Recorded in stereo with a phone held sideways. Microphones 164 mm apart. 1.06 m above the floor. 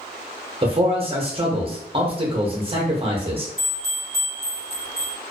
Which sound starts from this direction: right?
A man speaking, at 0.6 s.